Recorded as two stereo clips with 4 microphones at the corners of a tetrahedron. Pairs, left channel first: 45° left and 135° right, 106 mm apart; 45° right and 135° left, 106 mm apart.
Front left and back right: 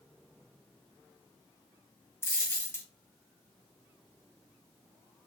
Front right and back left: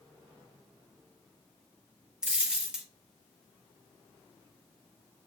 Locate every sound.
2.2 s a dropped coin: 60° left, 0.8 m